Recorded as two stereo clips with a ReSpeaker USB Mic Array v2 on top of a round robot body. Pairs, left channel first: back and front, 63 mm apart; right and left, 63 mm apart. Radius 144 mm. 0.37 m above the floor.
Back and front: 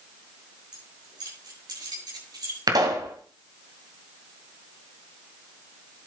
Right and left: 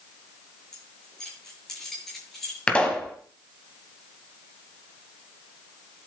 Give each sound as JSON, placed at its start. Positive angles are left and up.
{"t": 0.7, "sound": "keys jangling", "azimuth_deg": -10, "distance_m": 7.5}
{"t": 2.7, "sound": "a pop", "azimuth_deg": -15, "distance_m": 2.5}